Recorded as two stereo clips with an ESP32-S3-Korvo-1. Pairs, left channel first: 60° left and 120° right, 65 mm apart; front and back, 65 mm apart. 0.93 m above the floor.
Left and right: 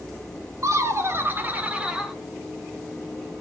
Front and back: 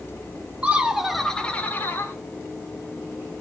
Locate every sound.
0.6 s laughter: 120° right, 1.3 m; by 2.1 s 40° right, 1.5 m